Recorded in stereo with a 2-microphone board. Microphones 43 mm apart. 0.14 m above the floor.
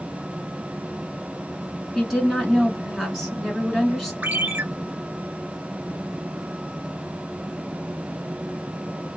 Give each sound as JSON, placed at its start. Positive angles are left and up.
{"t": 1.9, "sound": "a woman speaking", "side_deg": 5, "distance_m": 1.3}
{"t": 4.2, "sound": "a ringtone", "side_deg": -45, "distance_m": 0.9}